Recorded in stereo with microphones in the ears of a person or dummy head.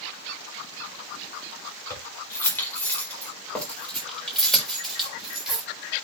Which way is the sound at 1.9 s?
20° left (ahead or behind).